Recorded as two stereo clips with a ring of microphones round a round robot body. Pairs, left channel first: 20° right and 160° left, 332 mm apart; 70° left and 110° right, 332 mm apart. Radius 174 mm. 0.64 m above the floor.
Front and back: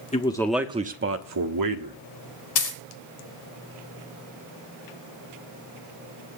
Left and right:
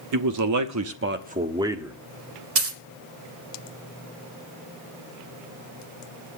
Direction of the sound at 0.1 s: 90° right.